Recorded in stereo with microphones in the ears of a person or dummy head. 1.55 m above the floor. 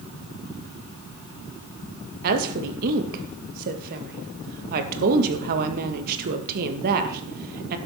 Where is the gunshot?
I don't hear a gunshot.